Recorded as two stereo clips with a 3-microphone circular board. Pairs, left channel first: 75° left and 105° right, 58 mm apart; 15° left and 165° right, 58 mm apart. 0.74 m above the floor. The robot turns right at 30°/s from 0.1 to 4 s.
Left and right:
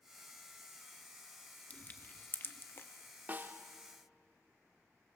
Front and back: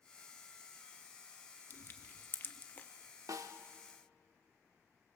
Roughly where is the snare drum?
Behind.